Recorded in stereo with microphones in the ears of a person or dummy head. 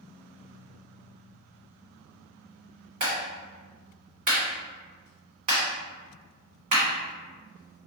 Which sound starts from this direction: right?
A clap, at 3.0 s.